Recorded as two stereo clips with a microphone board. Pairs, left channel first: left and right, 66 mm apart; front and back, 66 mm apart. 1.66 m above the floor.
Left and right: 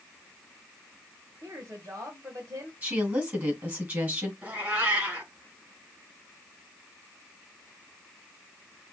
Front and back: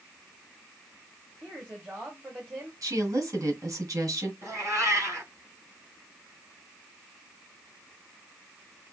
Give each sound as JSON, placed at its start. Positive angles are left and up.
{"t": 1.4, "sound": "a woman speaking", "azimuth_deg": -115, "distance_m": 1.7}
{"t": 2.8, "sound": "a woman speaking", "azimuth_deg": -150, "distance_m": 3.0}
{"t": 4.4, "sound": "a cat meowing", "azimuth_deg": -150, "distance_m": 3.5}